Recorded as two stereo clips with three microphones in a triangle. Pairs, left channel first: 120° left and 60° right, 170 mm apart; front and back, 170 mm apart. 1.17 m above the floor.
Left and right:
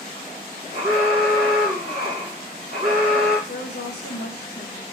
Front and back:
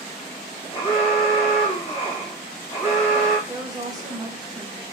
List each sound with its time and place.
0.7 s an alarm: 45° right, 1.8 m
3.5 s a woman speaking: 110° left, 1.4 m